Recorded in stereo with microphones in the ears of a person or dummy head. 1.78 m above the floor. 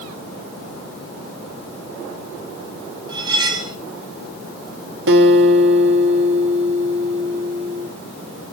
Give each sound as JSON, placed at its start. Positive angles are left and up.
{"t": 3.1, "sound": "cutlery clinking", "side_deg": -20, "distance_m": 3.5}
{"t": 5.1, "sound": "a guitar", "side_deg": -55, "distance_m": 1.7}